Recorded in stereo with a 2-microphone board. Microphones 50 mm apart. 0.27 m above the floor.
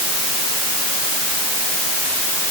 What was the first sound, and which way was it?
Only background noise.